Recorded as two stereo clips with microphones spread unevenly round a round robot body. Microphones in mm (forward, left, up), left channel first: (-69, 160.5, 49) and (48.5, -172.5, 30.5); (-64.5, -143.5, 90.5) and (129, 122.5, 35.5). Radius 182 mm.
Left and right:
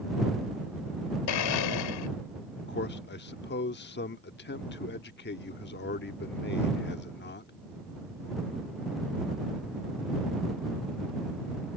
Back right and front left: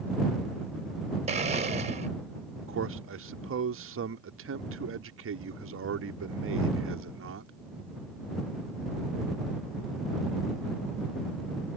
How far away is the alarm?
I don't hear an alarm.